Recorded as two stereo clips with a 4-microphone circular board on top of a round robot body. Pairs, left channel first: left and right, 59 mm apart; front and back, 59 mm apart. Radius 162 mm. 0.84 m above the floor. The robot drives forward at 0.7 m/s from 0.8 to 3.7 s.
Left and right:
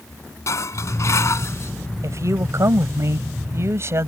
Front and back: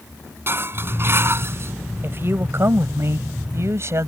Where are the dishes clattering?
130° left; by 1.7 s 135° left.